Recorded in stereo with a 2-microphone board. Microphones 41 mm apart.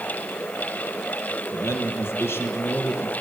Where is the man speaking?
80° left, 6.5 m; by 3.1 s 75° left (ahead or behind), 5.5 m.